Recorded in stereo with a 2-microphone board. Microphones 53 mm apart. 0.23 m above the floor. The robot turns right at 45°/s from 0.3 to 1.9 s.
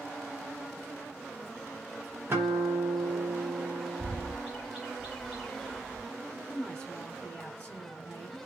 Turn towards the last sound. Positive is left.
turn(degrees=20)  # may be behind; listen again after turning